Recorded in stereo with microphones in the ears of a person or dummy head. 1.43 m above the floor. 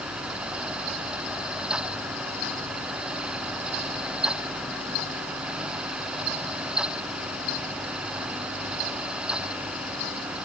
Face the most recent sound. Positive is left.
No sound to turn to.